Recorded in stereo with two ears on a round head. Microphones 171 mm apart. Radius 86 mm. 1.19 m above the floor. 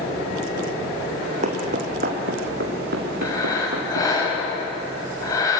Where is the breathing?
20° left (ahead or behind), 7 m.